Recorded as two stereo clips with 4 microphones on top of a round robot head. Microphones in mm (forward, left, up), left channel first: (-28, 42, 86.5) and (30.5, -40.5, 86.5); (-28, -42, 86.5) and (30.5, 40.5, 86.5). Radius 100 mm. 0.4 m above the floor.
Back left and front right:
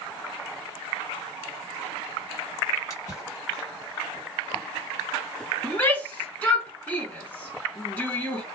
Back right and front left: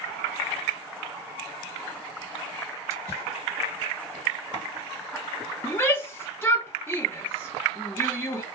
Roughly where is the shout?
Behind.